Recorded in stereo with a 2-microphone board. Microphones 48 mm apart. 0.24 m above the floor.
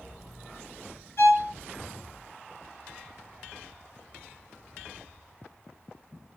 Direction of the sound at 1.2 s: 50° left (ahead or behind).